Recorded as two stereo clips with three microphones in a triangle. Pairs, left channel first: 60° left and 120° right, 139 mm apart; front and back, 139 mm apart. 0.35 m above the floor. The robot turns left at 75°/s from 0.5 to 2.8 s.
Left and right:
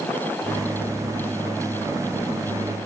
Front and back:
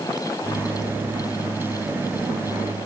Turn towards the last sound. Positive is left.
No sound to turn to.